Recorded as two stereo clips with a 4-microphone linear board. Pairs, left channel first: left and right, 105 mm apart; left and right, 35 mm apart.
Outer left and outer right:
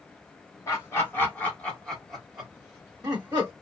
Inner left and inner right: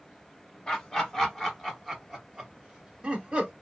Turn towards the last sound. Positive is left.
turn(degrees=-20)  # may be behind; listen again after turning